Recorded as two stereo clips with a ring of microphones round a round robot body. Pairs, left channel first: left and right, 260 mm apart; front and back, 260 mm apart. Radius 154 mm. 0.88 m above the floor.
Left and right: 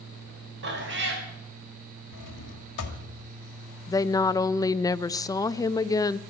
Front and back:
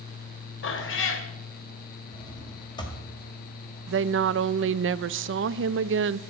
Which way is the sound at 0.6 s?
40° right.